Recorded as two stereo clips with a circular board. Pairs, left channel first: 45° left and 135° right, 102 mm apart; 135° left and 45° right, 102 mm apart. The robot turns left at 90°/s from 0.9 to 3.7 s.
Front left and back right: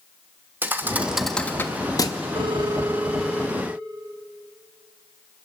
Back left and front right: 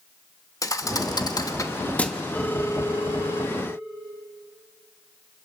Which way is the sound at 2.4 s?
145° right.